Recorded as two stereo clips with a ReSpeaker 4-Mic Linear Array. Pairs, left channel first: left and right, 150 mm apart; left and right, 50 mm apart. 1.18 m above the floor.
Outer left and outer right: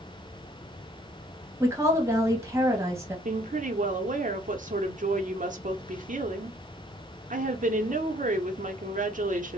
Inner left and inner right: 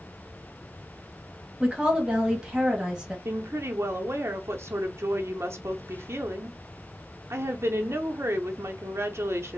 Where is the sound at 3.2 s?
55° right (ahead or behind), 0.6 m.